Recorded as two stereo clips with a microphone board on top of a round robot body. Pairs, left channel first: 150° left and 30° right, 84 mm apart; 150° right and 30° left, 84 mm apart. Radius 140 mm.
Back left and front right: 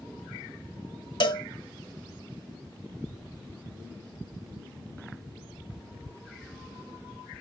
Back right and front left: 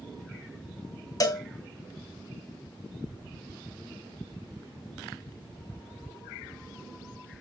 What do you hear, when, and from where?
1.2 s a cowbell: 170° left, 1.6 m